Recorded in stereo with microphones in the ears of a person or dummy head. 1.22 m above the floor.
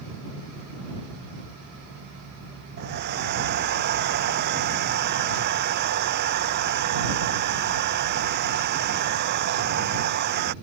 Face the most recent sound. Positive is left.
turn(degrees=-55)  # may be behind; listen again after turning